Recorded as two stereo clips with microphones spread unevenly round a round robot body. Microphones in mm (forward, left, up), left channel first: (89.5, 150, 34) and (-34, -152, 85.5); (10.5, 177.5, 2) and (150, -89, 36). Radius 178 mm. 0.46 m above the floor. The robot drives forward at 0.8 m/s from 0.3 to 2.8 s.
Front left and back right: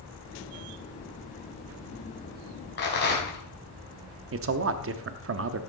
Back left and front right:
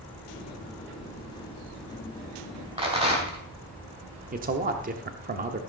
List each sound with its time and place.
2.8 s a rattle: 10° left, 3.5 m
4.3 s a man speaking: 105° right, 0.8 m